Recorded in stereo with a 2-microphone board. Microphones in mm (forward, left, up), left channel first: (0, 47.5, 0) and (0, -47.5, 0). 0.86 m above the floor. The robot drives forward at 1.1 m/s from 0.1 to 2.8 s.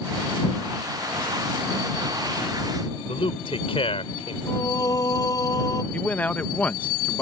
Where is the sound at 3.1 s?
80° left.